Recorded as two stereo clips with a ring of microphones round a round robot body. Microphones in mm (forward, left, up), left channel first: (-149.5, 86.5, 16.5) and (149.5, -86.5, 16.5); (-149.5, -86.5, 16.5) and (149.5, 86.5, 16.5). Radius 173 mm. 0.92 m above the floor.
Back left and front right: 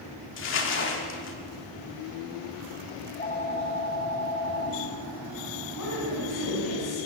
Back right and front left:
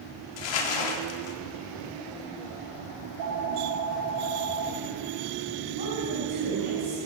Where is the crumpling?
155° right, 1.8 m.